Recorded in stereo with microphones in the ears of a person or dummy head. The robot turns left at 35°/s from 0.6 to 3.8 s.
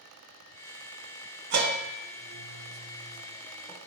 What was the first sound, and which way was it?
A bell, 60° right (ahead or behind).